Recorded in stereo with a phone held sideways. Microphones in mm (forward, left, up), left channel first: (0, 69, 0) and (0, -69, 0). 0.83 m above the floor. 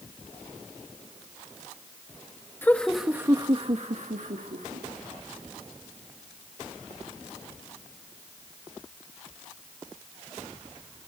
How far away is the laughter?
About 1.3 m.